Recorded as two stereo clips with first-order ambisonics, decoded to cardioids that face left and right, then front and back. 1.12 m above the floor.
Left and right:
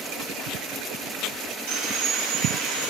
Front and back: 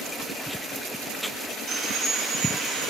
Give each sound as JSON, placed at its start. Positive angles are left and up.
{"t": 1.7, "sound": "sawing", "azimuth_deg": -120, "distance_m": 1.5}